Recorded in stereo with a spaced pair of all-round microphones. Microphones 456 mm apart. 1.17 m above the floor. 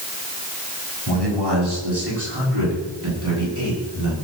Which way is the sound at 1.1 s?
60° right (ahead or behind).